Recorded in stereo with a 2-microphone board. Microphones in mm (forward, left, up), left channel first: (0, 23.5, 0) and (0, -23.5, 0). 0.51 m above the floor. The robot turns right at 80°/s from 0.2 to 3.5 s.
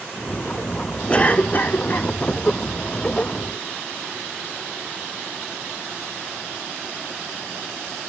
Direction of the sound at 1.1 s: 35° left.